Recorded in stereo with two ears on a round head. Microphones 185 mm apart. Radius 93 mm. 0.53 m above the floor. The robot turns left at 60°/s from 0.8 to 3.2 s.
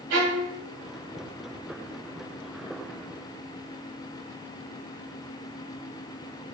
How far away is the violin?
About 1.1 m.